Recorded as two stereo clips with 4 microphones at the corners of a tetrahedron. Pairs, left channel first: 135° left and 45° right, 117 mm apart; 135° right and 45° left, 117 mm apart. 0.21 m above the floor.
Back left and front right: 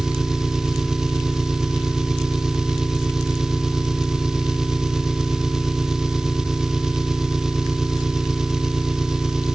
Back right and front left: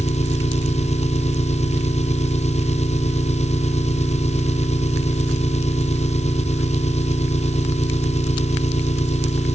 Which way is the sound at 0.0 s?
130° right.